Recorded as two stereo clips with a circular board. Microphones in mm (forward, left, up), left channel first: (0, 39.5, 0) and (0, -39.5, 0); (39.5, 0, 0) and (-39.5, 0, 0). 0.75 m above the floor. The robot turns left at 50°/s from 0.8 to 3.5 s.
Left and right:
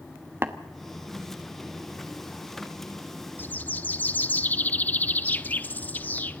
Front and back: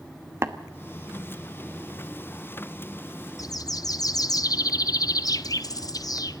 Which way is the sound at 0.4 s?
140° right.